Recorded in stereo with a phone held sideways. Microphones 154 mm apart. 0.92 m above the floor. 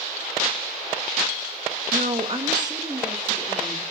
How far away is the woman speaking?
About 0.6 m.